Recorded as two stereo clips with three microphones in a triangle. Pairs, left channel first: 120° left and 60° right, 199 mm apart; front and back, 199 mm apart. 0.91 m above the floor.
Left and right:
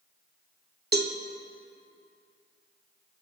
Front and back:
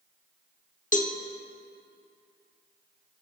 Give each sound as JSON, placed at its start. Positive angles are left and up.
{"t": 0.9, "sound": "a cowbell", "azimuth_deg": -40, "distance_m": 0.7}